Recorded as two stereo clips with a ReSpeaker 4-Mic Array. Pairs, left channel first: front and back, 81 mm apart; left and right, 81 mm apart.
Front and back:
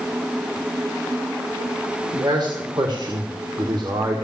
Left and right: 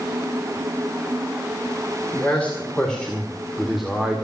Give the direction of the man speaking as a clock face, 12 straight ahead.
7 o'clock.